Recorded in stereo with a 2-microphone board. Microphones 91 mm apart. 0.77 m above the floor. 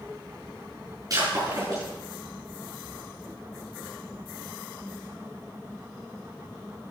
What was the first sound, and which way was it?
Breaking glass, 40° right (ahead or behind).